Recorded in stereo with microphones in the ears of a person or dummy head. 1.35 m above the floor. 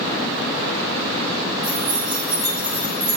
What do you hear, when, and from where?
1.6 s keys jangling: 30° right (ahead or behind), 3 m; by 3.2 s 5° right (ahead or behind), 2 m